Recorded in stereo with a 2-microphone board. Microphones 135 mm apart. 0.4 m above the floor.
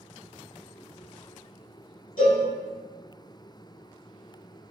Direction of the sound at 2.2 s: 75° left (ahead or behind).